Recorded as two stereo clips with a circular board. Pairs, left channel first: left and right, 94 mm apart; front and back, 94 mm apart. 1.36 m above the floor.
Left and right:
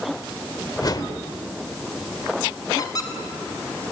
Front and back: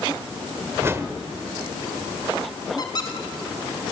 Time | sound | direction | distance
0.8 | a whoosh | 120° left | 1.5 m
2.8 | a squeak | 40° left | 3 m